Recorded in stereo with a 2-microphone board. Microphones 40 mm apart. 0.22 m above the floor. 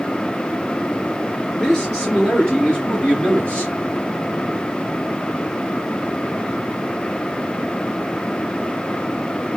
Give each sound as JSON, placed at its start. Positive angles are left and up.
{"t": 1.6, "sound": "a man speaking", "side_deg": 10, "distance_m": 3.0}